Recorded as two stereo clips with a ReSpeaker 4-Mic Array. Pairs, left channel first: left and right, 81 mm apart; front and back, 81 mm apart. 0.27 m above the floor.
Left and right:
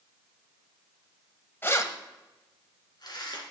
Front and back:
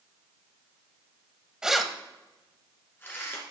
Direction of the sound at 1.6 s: 110° left.